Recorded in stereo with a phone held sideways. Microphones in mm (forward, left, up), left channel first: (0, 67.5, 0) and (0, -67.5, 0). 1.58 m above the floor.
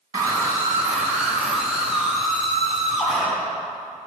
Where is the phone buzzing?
No phone buzzing in this recording.